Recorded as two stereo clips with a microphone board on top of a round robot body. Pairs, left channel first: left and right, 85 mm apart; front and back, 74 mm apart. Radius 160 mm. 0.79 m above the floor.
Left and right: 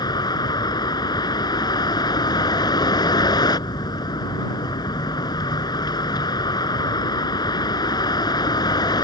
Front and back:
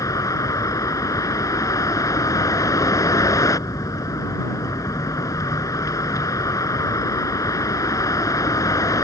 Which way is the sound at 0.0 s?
50° left.